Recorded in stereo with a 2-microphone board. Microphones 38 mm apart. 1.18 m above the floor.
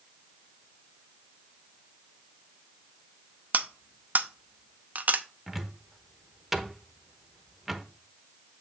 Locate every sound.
3.5 s cutlery clinking: 50° right (ahead or behind), 0.7 m
5.5 s a cupboard door: centre (ahead or behind), 0.9 m